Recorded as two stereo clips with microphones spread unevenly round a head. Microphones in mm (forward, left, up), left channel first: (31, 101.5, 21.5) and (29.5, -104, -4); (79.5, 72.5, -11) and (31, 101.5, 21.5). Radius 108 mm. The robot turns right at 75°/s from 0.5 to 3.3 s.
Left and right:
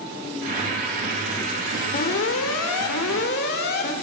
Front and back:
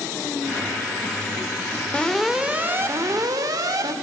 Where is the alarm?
35° left, 3.5 m; by 3.9 s 140° left, 3.5 m.